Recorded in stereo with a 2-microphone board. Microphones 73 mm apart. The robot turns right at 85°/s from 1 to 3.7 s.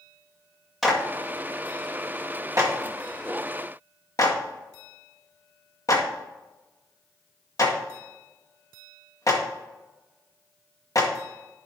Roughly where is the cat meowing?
I don't hear a cat meowing.